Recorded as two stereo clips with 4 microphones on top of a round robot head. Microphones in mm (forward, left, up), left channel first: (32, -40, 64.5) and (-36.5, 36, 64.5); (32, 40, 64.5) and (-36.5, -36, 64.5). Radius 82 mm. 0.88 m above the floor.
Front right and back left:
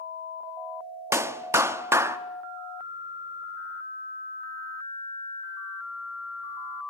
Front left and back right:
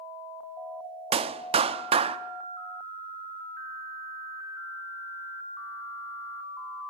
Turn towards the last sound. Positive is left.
turn(degrees=-160)